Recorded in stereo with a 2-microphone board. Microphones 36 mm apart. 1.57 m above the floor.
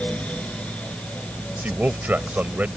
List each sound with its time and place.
1.6 s a man speaking: 50° right (ahead or behind)